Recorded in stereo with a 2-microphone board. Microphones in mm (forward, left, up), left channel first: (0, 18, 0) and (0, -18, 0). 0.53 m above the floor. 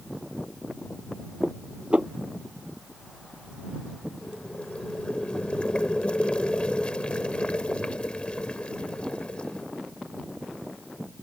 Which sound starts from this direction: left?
Boiling, at 4.2 s.